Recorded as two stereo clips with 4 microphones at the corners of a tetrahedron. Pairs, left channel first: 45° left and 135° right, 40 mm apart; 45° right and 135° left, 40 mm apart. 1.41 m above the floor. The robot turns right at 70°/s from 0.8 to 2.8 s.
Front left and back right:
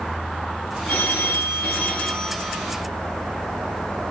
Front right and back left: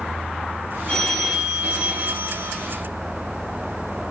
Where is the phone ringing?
30° left, 3 m; by 2.7 s 155° left, 3 m.